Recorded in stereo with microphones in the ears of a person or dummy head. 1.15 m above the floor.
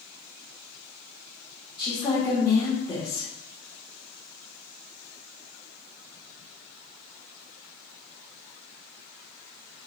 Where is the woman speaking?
20° left (ahead or behind), 1.6 m.